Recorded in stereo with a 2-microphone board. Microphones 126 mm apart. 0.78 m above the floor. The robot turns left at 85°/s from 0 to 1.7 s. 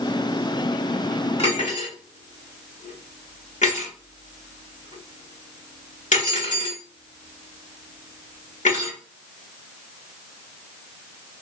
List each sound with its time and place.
1.4 s cutlery clinking: 50° left (ahead or behind), 1.3 m; by 9.0 s 75° left (ahead or behind), 1.3 m